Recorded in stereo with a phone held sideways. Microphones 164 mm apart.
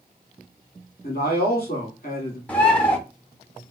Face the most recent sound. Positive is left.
turn(degrees=10)  # may be behind; listen again after turning